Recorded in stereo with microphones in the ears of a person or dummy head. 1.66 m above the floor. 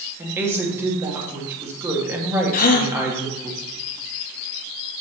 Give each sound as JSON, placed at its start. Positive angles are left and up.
{"t": 0.2, "sound": "a woman speaking", "side_deg": -15, "distance_m": 1.9}
{"t": 2.5, "sound": "a gasp", "side_deg": 50, "distance_m": 1.2}